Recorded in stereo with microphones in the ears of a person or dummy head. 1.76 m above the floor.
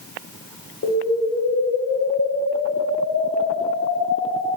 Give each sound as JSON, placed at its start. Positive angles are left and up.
{"t": 0.8, "sound": "an explosion", "side_deg": 60, "distance_m": 5.0}